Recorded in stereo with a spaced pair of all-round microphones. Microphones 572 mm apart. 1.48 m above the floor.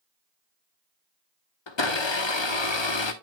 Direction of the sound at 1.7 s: 55° left (ahead or behind).